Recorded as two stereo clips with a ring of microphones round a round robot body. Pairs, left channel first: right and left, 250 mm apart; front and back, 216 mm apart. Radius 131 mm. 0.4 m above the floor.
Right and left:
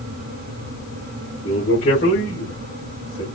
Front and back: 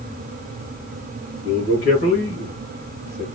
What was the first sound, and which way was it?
A man speaking, 45° right.